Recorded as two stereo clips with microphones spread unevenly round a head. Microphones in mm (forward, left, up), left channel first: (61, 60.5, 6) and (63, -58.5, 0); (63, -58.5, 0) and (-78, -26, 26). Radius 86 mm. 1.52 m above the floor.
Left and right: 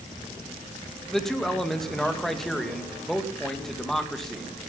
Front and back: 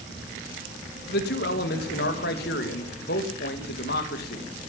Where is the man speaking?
5° left, 2.5 m.